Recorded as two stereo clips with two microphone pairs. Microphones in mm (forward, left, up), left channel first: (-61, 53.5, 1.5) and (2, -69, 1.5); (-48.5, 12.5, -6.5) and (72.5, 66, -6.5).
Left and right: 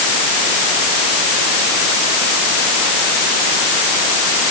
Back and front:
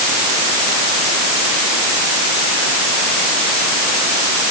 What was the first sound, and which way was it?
Only background noise.